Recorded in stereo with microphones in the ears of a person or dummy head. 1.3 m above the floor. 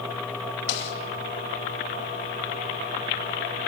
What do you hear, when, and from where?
0.7 s a snare drum: 65° left (ahead or behind), 3 m